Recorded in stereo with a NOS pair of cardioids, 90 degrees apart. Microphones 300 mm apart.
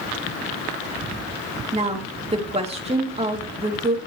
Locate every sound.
1.7 s a woman speaking: 20° right, 3 m